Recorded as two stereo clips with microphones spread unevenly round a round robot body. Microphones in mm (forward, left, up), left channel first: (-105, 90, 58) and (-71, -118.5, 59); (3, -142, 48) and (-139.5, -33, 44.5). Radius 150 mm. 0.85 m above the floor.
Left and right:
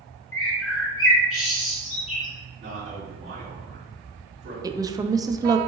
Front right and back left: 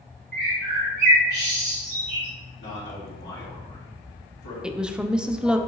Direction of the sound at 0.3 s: 110° left.